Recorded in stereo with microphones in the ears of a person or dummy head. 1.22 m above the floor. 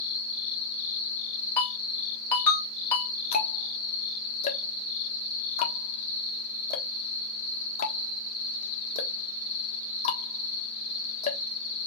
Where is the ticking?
55° left (ahead or behind), 1.4 m.